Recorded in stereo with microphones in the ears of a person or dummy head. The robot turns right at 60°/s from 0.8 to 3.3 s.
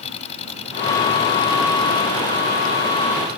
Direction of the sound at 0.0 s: 40° left.